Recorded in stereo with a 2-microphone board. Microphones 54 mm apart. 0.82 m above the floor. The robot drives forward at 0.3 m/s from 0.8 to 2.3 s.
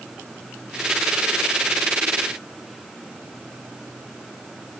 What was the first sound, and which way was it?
Only background noise.